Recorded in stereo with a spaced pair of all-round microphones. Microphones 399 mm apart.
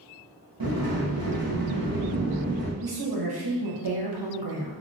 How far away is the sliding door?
About 0.9 m.